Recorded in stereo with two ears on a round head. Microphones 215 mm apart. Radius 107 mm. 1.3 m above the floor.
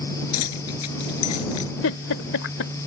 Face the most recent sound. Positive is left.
turn(degrees=65)  # may be behind; listen again after turning